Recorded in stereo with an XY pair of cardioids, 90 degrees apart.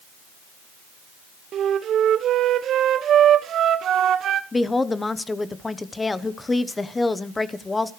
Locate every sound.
1.5 s a flute: 70° right, 0.7 m
4.5 s a woman speaking: 25° left, 1.0 m